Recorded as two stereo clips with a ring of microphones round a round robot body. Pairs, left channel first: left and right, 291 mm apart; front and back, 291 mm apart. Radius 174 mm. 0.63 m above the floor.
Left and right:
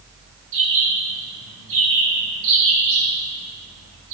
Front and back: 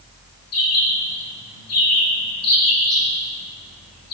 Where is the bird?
35° right, 4.5 m.